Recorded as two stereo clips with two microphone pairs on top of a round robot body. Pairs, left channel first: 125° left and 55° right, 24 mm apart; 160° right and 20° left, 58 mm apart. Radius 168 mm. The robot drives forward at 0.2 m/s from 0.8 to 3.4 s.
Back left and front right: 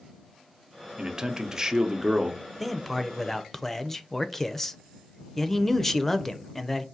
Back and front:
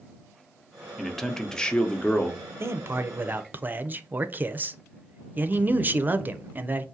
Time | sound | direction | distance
1.0 | a man speaking | 80° right | 0.8 m
2.6 | a man speaking | 30° left | 0.7 m